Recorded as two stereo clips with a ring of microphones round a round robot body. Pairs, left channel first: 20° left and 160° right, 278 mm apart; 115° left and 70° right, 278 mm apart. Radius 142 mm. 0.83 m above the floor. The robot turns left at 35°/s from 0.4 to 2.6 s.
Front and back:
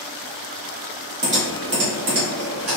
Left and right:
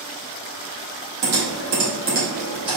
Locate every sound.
1.2 s typing on a keyboard: 90° right, 1.7 m; by 2.8 s 140° right, 1.7 m